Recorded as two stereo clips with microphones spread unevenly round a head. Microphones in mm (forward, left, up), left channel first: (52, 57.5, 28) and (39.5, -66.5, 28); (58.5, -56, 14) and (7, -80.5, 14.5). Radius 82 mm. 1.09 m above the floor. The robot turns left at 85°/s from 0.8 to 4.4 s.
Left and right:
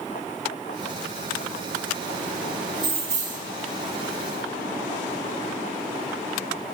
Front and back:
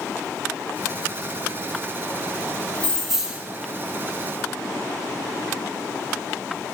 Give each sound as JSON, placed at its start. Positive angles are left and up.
{"t": 2.8, "sound": "keys jangling", "azimuth_deg": -40, "distance_m": 0.9}